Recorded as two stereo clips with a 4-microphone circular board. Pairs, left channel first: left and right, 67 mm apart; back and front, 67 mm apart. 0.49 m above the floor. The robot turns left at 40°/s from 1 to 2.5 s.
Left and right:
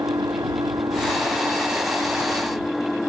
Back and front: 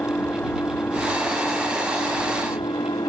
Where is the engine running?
120° right; by 3.1 s straight behind.